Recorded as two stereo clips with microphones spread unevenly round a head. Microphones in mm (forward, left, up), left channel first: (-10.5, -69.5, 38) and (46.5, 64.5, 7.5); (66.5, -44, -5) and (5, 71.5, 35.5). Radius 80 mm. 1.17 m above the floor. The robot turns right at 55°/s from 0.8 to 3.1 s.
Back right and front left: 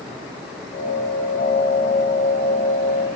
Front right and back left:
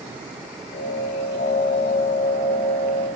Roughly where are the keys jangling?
I don't hear keys jangling.